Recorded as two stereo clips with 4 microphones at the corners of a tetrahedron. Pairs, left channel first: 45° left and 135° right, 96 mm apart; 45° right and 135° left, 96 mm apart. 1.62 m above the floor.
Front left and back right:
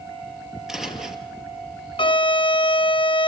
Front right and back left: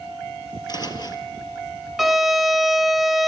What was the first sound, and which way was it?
Footsteps, 50° right.